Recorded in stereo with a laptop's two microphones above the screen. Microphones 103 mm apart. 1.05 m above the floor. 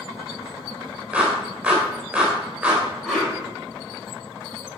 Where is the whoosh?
Centre (ahead or behind), 5.5 m.